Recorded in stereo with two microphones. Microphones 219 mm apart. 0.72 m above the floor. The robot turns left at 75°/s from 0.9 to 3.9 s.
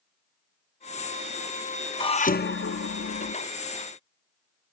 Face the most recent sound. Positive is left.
turn(degrees=20)